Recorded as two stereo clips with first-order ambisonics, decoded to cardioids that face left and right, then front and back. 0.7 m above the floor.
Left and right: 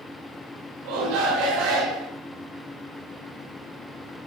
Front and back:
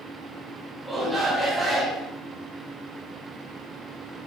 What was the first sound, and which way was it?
A shout, 95° right.